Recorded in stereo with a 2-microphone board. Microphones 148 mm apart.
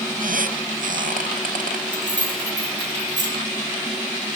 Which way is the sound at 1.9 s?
60° left (ahead or behind).